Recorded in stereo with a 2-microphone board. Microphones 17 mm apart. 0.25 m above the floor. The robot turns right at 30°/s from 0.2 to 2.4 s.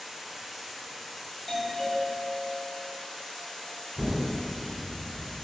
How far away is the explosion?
About 1.0 m.